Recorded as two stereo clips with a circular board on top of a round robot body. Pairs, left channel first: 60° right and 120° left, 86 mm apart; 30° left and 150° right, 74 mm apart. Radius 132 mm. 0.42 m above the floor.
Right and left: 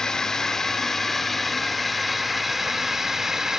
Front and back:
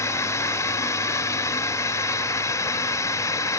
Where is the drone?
20° left; by 3.6 s 40° left.